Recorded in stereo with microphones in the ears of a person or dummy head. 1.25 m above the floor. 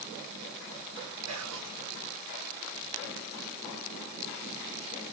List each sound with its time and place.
1.3 s whispering: 80° right, 1.1 m